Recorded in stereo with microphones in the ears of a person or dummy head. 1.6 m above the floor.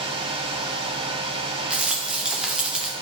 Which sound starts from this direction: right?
A fan, at 0.0 s.